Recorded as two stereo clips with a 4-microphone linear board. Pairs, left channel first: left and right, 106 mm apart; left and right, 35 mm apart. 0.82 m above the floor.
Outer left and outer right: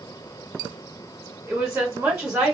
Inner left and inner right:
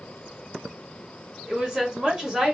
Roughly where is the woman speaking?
Centre.